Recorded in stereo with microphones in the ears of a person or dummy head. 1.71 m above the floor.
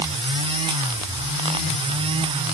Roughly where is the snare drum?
No snare drum in this recording.